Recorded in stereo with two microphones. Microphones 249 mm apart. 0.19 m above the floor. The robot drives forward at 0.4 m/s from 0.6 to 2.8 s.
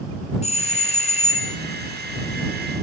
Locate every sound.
0.4 s a doorbell: 25° left (ahead or behind), 1.8 m; by 1.6 s 30° left (ahead or behind), 1.8 m